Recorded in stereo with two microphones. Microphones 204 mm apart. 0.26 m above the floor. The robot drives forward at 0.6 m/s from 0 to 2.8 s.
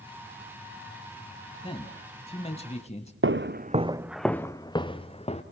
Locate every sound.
1.6 s a man speaking: 25° left (ahead or behind), 1.9 m; by 3.1 s 30° left (ahead or behind), 1.6 m
3.2 s footsteps: 70° right (ahead or behind), 0.9 m; by 5.4 s 30° left (ahead or behind), 2 m